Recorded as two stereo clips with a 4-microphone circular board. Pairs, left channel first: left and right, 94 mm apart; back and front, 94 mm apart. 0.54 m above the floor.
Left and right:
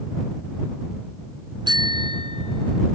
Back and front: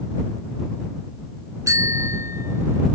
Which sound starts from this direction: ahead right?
A bicycle bell, at 1.7 s.